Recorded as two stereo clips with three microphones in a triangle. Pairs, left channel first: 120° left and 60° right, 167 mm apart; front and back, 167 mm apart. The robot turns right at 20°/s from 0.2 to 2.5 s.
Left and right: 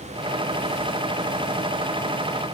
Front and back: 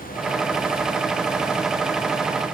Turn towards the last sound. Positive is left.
No sound to turn to.